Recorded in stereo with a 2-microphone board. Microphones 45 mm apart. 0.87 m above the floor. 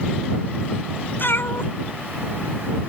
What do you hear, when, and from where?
1.2 s a cat meowing: 60° left (ahead or behind); by 2.8 s 80° left